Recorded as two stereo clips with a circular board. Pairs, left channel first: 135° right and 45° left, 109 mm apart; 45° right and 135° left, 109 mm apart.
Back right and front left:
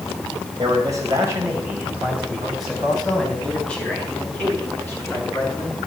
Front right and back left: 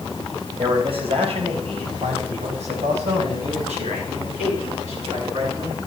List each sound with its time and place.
0.6 s a man speaking: 95° left, 4 m; by 5.8 s 160° left, 7.5 m